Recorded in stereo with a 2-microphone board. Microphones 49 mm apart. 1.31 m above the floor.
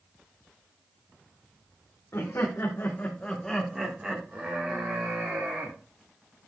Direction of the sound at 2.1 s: 75° left (ahead or behind).